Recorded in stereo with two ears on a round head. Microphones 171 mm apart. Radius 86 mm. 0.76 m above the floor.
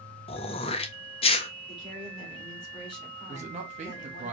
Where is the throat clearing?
30° left (ahead or behind), 0.5 m.